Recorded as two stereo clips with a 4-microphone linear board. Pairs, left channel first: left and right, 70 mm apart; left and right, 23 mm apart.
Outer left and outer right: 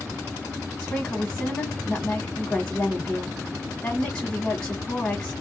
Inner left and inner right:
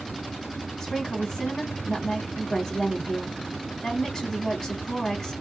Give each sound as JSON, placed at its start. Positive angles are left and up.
{"t": 0.8, "sound": "a woman speaking", "side_deg": 25, "distance_m": 1.1}